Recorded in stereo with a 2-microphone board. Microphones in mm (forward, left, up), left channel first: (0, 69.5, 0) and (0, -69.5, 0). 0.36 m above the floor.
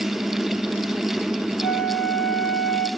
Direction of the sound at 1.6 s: Centre (ahead or behind).